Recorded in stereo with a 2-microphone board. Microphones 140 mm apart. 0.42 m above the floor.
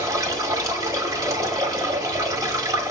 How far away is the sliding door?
No sliding door in this recording.